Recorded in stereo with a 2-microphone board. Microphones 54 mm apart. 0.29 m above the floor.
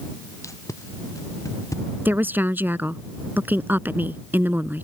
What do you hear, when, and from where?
0.4 s tape being pulled: 75° left (ahead or behind)
2.0 s a woman speaking: 40° right (ahead or behind)